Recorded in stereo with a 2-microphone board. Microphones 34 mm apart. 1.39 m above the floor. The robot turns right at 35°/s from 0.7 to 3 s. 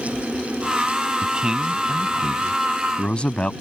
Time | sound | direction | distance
1.2 | a man speaking | 35° right (ahead or behind) | ?